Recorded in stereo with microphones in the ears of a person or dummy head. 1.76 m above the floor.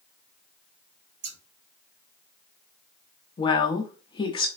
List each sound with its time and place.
1.2 s scissors: 80° right, 1.0 m
3.4 s a woman speaking: 25° left (ahead or behind), 0.5 m